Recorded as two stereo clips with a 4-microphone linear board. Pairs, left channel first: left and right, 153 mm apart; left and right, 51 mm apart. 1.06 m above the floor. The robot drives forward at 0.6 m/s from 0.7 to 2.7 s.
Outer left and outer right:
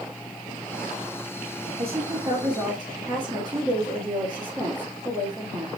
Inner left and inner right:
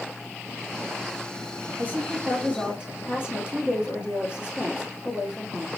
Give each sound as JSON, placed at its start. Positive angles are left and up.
{"t": 1.8, "sound": "a woman speaking", "side_deg": -40, "distance_m": 1.1}